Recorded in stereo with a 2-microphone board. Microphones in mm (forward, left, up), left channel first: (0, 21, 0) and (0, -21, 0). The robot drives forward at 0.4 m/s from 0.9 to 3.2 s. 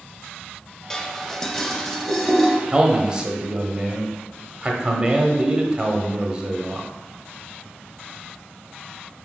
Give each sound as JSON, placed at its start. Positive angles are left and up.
{"t": 0.9, "sound": "dishes clattering", "side_deg": 10, "distance_m": 0.7}
{"t": 2.7, "sound": "a man speaking", "side_deg": -20, "distance_m": 0.9}